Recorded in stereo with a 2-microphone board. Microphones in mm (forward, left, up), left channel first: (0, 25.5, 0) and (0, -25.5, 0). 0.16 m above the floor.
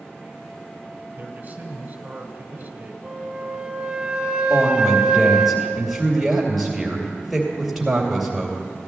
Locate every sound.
1.2 s a man speaking: 35° right (ahead or behind), 1.3 m
3.0 s a flute: 15° right (ahead or behind), 0.8 m
4.5 s a woman speaking: 5° right (ahead or behind), 2.5 m